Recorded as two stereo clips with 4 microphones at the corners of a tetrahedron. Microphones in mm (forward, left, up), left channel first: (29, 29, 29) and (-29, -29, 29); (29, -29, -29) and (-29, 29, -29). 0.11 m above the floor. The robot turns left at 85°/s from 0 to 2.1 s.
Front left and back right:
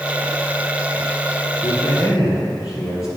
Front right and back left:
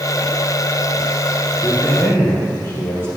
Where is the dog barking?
I don't hear a dog barking.